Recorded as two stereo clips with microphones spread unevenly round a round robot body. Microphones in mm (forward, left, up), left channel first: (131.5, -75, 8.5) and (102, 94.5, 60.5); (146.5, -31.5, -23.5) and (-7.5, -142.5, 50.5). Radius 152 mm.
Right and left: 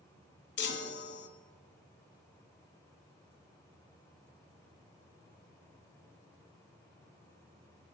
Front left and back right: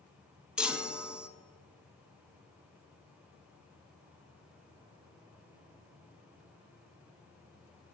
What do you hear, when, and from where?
0.6 s a chime: 60° right, 0.6 m